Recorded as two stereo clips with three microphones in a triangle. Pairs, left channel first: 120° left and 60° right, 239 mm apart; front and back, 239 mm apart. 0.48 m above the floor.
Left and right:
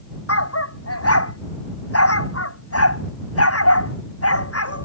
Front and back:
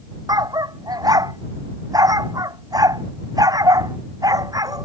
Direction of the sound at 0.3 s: 105° left.